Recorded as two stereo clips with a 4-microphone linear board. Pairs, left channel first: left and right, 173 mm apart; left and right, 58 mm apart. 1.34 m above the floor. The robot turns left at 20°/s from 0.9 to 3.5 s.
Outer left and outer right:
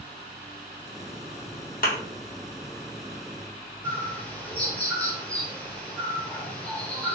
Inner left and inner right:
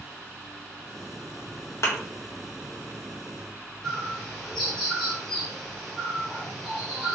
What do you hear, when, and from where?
1.8 s a thud: 55° left (ahead or behind), 1.1 m
3.8 s a bird: 10° left (ahead or behind), 1.0 m